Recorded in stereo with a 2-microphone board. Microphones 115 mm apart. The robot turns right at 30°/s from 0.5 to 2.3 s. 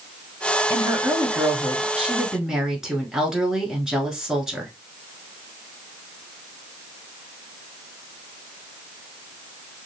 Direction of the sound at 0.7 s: 20° right (ahead or behind).